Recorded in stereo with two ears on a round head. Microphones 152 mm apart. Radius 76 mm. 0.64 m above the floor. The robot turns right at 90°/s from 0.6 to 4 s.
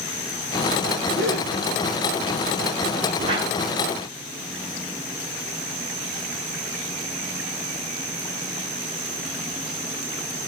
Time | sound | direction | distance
1.1 | a gasp | 15° right (ahead or behind) | 10 m
3.2 | a whoosh | 40° right | 5 m